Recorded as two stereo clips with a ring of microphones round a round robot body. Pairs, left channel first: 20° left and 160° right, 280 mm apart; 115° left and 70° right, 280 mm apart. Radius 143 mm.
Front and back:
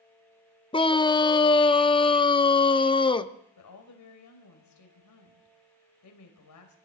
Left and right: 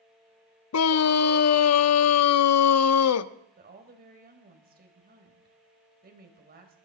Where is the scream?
95° left, 0.8 m.